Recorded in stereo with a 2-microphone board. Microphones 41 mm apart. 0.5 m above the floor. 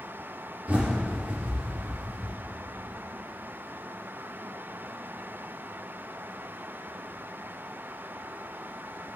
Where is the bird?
35° right (ahead or behind), 5 m.